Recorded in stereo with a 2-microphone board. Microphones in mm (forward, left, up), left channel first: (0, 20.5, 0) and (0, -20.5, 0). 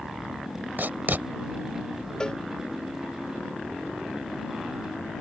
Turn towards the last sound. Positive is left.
turn(degrees=20)  # may be behind; listen again after turning